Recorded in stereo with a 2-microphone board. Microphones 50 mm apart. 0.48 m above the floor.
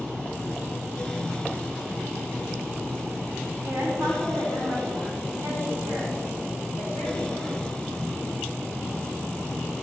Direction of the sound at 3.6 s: 75° right (ahead or behind).